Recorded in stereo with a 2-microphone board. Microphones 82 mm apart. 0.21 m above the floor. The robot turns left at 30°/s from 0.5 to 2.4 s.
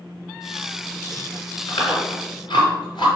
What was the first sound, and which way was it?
Chewing, 65° left (ahead or behind).